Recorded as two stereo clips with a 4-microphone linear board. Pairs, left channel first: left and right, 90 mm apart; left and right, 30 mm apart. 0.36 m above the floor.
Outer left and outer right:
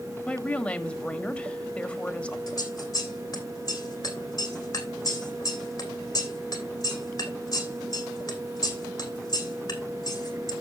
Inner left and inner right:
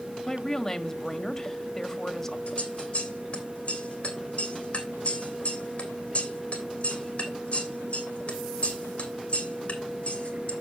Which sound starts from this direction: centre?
A woman speaking, at 0.3 s.